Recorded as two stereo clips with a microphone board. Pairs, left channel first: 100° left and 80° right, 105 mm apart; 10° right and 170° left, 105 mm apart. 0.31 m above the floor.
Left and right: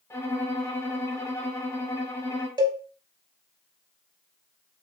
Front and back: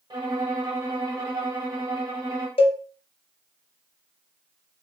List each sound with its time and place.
0.1 s a violin: 145° left, 1.1 m
2.6 s a cowbell: 40° right, 0.5 m